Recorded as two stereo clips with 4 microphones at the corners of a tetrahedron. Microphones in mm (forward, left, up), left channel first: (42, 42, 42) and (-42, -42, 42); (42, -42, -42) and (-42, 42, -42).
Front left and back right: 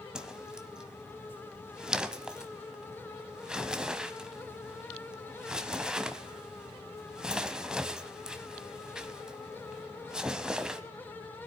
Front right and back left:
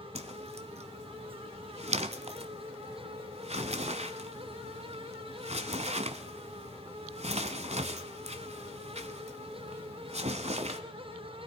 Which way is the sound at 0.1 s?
140° left.